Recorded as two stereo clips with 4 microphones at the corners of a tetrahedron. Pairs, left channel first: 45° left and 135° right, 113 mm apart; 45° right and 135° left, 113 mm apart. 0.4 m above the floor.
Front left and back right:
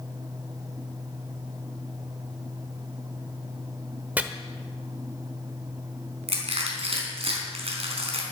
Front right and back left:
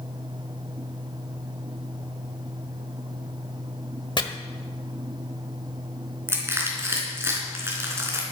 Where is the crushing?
160° right, 4 m.